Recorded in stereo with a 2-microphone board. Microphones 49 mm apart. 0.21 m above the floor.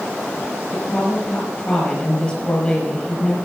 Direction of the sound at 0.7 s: 20° left (ahead or behind).